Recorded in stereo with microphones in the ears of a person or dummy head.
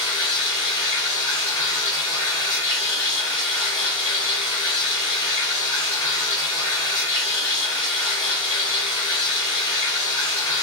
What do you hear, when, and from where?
0.0 s running water: 20° left (ahead or behind), 2 m